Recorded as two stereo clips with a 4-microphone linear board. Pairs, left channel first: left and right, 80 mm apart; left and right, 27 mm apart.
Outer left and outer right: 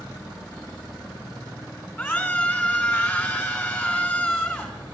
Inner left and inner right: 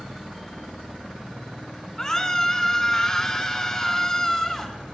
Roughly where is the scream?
Left.